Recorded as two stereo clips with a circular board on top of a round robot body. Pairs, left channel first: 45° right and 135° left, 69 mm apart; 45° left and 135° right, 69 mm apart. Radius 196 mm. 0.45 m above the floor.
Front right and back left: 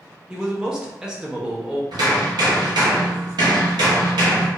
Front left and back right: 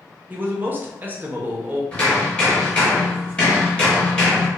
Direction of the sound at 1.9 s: 120° left.